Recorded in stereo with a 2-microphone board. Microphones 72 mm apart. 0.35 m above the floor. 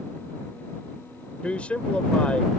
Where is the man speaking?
20° left (ahead or behind).